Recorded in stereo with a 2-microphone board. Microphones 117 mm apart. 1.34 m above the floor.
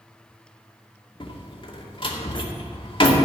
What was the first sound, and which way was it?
A door slam, 45° left (ahead or behind).